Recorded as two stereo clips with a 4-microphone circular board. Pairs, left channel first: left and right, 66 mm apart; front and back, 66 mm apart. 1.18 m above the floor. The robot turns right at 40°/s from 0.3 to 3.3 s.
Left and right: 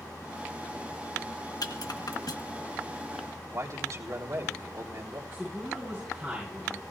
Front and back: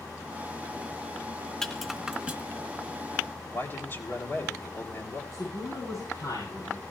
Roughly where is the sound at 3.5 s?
Ahead right.